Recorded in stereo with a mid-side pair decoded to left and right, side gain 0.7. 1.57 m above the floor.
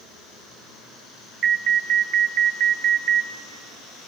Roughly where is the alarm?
Ahead right.